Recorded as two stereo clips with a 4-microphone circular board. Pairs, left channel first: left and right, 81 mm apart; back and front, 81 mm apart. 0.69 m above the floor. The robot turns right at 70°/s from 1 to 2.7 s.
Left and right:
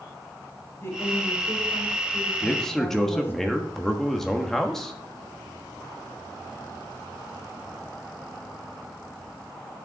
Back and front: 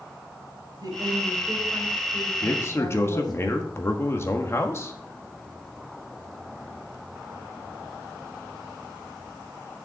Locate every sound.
0.8 s a woman speaking: 30° left, 3.5 m; by 3.3 s 150° left, 3.5 m
2.4 s a man speaking: 150° left, 1.2 m; by 4.9 s 170° left, 1.2 m